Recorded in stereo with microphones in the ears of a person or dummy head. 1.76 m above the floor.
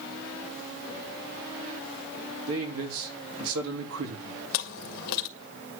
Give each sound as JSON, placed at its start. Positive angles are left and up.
{"t": 2.5, "sound": "a man speaking", "side_deg": -85, "distance_m": 3.0}
{"t": 4.5, "sound": "chewing", "side_deg": 60, "distance_m": 1.7}